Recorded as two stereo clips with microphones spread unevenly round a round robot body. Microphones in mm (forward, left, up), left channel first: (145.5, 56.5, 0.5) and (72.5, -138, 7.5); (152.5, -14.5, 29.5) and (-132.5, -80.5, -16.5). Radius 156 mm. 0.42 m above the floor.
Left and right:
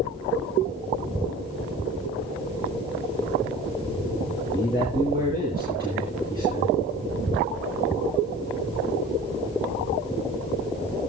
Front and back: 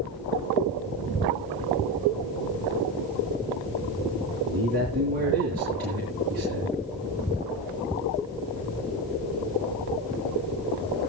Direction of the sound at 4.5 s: 135° left.